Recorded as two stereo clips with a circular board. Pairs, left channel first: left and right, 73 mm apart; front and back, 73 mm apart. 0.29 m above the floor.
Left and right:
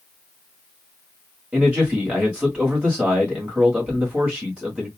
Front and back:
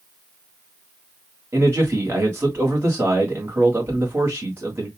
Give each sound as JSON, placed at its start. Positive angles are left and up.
{"t": 1.5, "sound": "a man speaking", "azimuth_deg": -155, "distance_m": 1.7}